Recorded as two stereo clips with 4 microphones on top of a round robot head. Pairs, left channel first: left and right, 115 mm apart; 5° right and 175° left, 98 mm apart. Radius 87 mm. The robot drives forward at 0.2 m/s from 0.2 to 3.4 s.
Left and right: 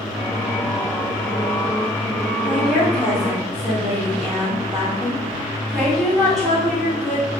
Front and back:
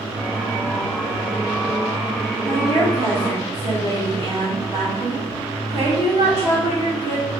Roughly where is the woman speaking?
Behind.